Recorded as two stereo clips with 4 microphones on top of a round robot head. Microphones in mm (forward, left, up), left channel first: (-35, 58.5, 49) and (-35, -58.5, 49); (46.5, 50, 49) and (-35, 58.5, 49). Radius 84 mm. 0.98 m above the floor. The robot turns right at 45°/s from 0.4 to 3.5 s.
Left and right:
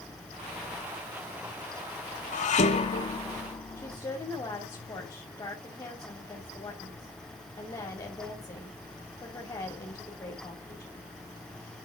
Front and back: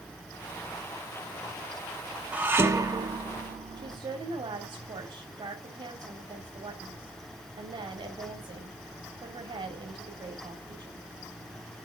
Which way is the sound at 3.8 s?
150° left.